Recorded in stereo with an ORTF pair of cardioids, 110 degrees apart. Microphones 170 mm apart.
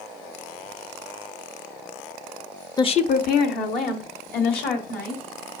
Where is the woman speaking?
20° left, 0.7 m; by 5.2 s 75° left, 4 m.